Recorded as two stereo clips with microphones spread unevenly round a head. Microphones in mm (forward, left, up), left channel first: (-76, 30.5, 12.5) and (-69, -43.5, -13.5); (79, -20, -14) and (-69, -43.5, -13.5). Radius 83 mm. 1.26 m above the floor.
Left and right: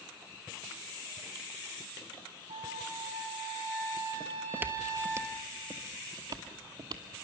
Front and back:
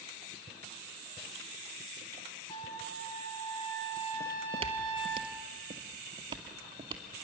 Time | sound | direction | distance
2.5 | a trumpet | 50° right | 3.5 m
4.2 | footsteps | 175° right | 1.5 m